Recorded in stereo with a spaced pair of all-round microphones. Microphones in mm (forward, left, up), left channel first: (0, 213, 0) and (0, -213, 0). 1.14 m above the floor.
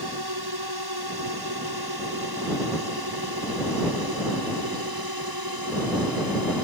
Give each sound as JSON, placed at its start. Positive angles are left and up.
{"t": 0.0, "sound": "a drone", "side_deg": -65}